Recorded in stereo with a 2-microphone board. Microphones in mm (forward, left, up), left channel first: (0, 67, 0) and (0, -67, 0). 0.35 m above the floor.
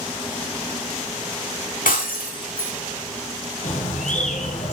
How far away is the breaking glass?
About 4 m.